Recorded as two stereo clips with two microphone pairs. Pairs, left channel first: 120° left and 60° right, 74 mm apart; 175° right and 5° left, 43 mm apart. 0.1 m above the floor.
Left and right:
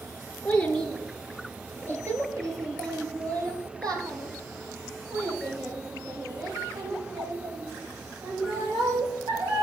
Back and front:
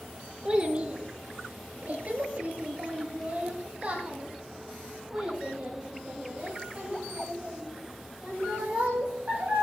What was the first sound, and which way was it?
A child speaking, 55° left.